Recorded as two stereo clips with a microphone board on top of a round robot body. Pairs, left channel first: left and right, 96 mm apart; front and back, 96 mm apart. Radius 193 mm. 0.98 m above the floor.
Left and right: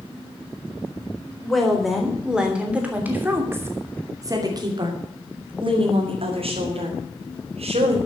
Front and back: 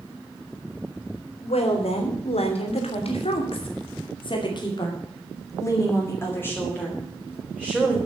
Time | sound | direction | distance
1.4 | a woman speaking | 5° left | 3.5 m